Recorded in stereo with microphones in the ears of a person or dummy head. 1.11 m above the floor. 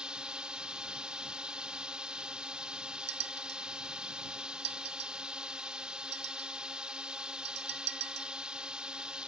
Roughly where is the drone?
Centre.